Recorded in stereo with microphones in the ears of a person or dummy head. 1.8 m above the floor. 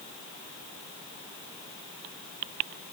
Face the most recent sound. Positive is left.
No sound to turn to.